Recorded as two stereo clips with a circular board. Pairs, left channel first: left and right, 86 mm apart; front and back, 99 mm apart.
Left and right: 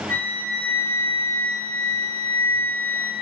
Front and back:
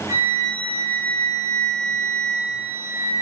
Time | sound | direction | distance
0.1 | a flute | 135° left | 1.2 m